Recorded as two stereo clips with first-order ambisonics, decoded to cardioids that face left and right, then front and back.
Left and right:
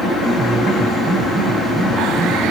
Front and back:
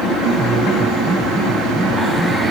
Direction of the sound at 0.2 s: 155° right.